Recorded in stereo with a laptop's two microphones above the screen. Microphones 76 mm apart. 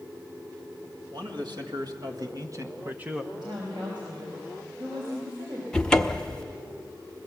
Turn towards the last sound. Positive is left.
turn(degrees=10)  # may be behind; listen again after turning